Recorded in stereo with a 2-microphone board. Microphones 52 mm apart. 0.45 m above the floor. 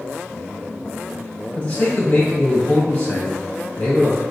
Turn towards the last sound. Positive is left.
turn(degrees=25)  # may be behind; listen again after turning